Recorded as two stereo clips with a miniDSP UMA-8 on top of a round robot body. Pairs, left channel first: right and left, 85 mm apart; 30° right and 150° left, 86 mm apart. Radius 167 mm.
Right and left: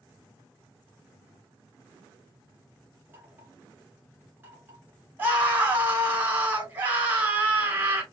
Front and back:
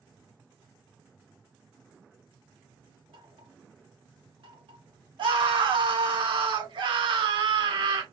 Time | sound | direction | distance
3.1 | knocking | 155° left | 4 m
5.2 | a scream | 155° left | 4 m